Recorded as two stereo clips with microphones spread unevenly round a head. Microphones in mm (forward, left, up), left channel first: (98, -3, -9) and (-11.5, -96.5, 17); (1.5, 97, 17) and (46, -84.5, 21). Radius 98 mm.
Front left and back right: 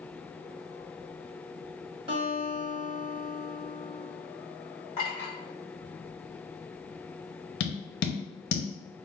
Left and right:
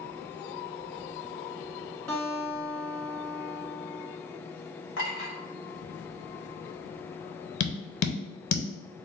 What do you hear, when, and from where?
2.1 s a guitar: 170° right, 1.1 m
5.0 s a clink: 110° left, 1.8 m
7.6 s tapping: 80° left, 0.8 m